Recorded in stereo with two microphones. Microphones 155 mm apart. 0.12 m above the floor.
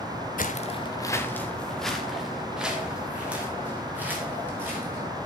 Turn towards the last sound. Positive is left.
turn(degrees=-15)  # may be behind; listen again after turning